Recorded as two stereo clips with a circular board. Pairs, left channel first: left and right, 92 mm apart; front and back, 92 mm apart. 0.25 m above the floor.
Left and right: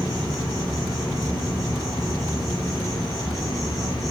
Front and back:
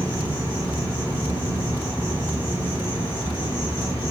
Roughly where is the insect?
Behind.